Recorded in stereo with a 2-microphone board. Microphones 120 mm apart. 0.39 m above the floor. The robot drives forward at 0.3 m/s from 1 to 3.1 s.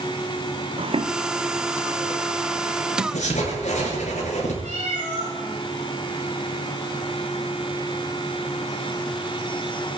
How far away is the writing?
About 7.5 m.